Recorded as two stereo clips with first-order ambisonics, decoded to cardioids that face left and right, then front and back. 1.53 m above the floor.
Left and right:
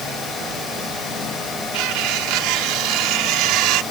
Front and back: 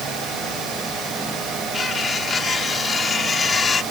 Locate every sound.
1.7 s cutlery clinking: 70° right